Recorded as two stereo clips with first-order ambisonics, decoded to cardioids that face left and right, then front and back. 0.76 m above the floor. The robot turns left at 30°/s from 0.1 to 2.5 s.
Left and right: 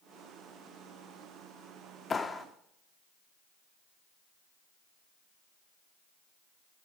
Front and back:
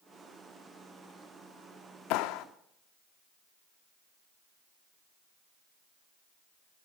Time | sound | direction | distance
2.1 | a clap | 20° left | 1.1 m